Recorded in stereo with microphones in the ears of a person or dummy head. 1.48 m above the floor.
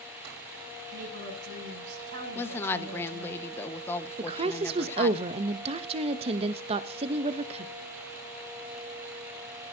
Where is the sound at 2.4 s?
15° left (ahead or behind), 1.1 m.